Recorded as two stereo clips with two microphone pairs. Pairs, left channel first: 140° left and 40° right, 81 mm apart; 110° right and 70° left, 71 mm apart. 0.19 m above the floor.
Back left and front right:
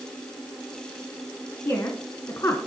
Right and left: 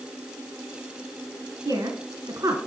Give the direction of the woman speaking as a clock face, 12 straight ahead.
9 o'clock.